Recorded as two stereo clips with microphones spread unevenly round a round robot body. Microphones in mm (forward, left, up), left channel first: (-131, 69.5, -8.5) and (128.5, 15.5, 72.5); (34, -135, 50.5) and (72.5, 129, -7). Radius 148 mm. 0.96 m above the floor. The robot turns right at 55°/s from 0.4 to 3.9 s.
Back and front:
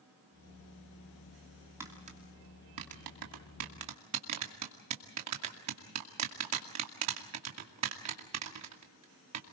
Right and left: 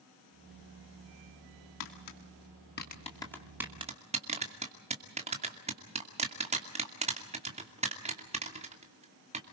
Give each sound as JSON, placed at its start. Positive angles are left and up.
{"t": 1.8, "sound": "tapping", "azimuth_deg": -95, "distance_m": 2.5}